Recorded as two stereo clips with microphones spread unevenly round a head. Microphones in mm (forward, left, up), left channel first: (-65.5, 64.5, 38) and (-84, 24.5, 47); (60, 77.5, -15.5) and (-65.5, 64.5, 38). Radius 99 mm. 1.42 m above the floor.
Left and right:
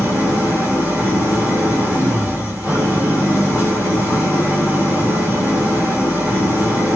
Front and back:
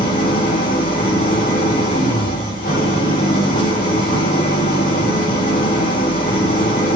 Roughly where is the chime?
No chime in this recording.